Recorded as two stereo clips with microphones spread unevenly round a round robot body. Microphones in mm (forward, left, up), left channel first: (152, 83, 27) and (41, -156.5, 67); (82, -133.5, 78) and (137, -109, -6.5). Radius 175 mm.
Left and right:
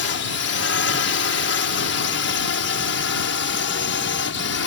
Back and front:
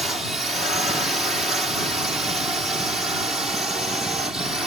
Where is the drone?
45° left; by 4.7 s 40° left.